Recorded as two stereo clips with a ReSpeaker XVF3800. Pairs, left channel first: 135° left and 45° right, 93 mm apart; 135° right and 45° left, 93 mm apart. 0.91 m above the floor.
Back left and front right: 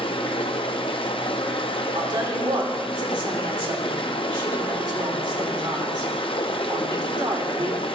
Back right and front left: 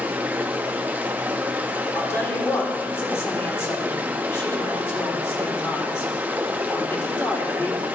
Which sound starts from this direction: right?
A woman speaking, at 1.9 s.